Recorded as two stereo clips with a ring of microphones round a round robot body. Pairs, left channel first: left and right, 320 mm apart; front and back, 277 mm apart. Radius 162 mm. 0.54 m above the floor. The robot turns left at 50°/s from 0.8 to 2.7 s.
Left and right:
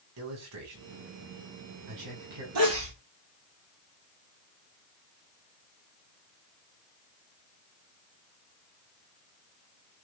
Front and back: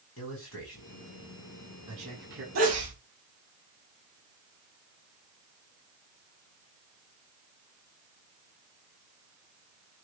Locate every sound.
0.2 s a man speaking: 50° right, 5 m; by 2.5 s 130° right, 5 m
2.5 s a sneeze: 130° right, 4.5 m; by 2.9 s 135° right, 4.5 m